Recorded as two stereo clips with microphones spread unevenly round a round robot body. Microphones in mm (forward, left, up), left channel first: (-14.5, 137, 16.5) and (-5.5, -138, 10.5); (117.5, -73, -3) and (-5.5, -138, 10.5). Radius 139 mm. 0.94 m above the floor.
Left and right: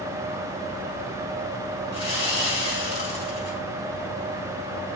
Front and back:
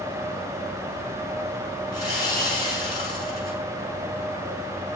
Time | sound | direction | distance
1.9 | sawing | 35° left | 5 m